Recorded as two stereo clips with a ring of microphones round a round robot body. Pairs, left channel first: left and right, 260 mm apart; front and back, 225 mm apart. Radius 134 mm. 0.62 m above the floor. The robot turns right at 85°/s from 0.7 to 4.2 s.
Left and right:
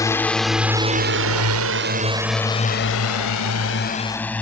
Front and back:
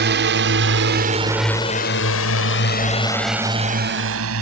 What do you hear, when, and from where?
0.0 s a drone: 165° left; by 4.4 s 175° left